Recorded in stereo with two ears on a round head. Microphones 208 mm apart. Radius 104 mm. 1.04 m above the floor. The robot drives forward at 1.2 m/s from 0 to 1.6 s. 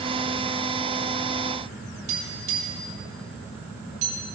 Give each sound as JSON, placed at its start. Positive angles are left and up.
{"t": 2.1, "sound": "tapping", "side_deg": -80, "distance_m": 4.5}